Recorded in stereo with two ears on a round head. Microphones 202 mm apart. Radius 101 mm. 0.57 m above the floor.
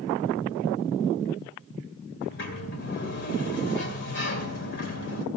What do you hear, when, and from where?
2.2 s a sliding door: 55° left (ahead or behind), 2 m